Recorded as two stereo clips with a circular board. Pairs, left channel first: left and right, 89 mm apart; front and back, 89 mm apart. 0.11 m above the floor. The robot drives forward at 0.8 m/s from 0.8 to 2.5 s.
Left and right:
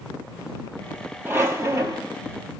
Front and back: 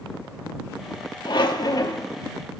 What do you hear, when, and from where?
1.2 s a squeak: 30° right, 1.4 m; by 2.1 s 50° right, 0.9 m